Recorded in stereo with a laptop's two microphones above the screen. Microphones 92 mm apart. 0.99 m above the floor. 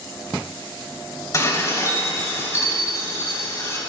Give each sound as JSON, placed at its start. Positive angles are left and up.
{"t": 1.3, "sound": "dishes clattering", "side_deg": 35, "distance_m": 3.0}